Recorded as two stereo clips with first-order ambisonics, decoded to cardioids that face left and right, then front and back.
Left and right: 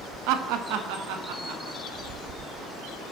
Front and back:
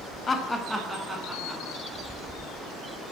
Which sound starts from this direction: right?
Laughter, at 0.3 s.